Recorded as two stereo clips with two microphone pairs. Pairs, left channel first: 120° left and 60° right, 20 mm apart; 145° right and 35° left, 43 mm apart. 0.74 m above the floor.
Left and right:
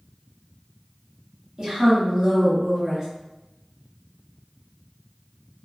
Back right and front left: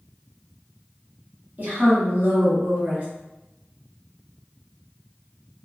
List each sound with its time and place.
1.6 s a woman speaking: 5° right, 1.3 m